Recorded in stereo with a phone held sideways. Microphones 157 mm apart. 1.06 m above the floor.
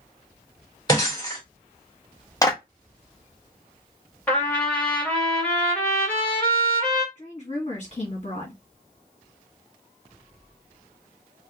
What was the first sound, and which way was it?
Breaking glass, 25° left (ahead or behind).